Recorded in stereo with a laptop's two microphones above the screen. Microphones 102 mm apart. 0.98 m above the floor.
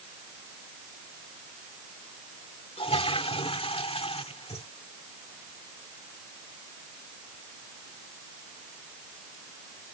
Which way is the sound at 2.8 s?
65° left (ahead or behind).